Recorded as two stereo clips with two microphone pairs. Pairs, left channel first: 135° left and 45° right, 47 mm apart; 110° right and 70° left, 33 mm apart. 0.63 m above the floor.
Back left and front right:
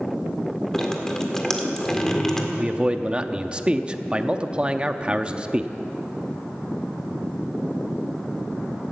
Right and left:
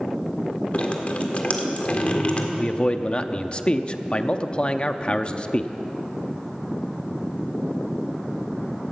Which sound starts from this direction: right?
A man speaking, at 2.6 s.